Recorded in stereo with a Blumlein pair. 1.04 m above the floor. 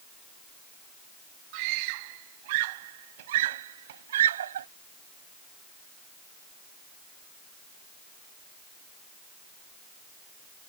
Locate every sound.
1.5 s a scream: 45° right; by 4.7 s 65° right